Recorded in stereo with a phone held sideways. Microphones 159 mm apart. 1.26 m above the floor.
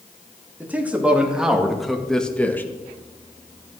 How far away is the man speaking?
About 3 m.